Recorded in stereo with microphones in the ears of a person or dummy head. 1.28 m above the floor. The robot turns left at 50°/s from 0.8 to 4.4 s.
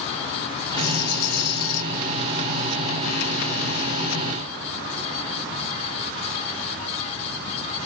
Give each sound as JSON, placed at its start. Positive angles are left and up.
{"t": 0.8, "sound": "a rattle", "azimuth_deg": 110, "distance_m": 1.0}